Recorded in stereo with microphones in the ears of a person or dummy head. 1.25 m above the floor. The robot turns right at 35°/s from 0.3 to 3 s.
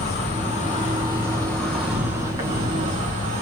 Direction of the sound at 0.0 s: 125° left.